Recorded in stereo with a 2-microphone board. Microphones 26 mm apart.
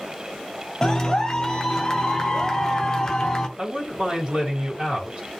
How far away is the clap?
About 0.5 m.